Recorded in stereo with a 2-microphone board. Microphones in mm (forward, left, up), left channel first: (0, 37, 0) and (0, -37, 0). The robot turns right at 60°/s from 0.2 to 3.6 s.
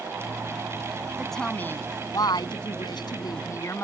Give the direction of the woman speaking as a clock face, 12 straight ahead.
12 o'clock.